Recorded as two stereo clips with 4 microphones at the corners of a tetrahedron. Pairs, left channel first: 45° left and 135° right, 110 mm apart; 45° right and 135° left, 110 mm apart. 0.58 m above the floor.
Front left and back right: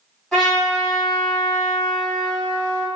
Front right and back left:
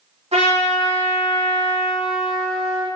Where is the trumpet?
130° left, 1.4 m.